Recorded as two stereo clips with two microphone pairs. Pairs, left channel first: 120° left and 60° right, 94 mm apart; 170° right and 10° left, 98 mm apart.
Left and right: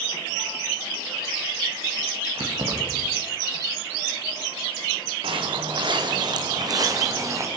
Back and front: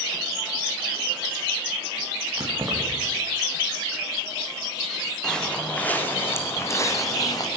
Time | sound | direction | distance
2.4 | keys jangling | 50° right | 7.5 m
5.2 | footsteps | 85° right | 5.5 m